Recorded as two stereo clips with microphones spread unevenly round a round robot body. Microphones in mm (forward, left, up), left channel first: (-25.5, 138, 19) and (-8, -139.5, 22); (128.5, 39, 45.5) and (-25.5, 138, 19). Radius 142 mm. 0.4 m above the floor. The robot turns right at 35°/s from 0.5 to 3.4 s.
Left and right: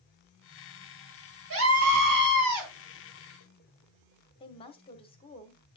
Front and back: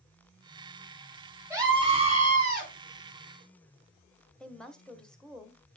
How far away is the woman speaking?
About 1.0 m.